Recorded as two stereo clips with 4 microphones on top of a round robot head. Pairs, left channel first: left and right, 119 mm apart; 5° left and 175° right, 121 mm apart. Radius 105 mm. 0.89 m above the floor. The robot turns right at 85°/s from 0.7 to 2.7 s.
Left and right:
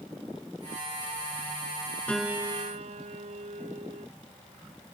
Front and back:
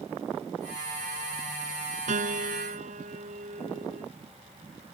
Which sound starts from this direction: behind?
A piano, at 2.1 s.